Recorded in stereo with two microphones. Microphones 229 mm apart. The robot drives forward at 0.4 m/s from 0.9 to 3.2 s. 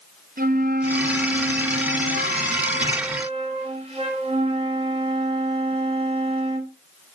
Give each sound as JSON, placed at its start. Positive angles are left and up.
{"t": 0.4, "sound": "a flute", "side_deg": -40, "distance_m": 0.7}